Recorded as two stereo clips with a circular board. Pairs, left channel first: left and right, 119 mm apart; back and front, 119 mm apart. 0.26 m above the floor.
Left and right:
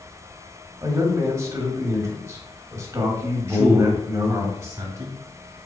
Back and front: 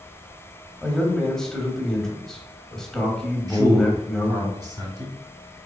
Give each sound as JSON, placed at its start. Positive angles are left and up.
{"t": 0.8, "sound": "a man speaking", "azimuth_deg": -100, "distance_m": 1.0}
{"t": 3.5, "sound": "a man speaking", "azimuth_deg": -40, "distance_m": 1.4}